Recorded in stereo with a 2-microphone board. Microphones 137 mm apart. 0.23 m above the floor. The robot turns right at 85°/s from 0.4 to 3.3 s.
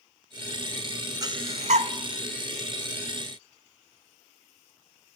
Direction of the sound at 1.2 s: 30° right (ahead or behind).